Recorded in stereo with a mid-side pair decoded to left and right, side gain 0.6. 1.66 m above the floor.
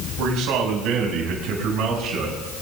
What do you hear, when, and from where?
0.2 s a man speaking: 70° right, 7 m; by 2.4 s 60° right, 8.5 m